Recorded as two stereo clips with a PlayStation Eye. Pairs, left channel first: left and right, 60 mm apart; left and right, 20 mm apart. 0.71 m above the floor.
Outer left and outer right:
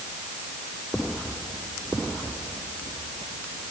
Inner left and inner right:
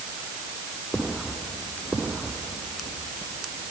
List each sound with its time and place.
Only background noise.